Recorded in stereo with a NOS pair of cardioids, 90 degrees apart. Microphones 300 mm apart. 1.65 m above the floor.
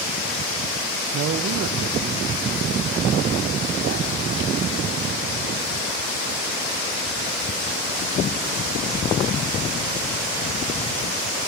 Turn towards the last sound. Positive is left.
turn(degrees=-40)